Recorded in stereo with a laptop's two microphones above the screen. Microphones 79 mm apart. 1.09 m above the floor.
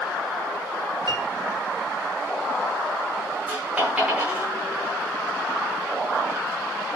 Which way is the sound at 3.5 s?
20° right (ahead or behind).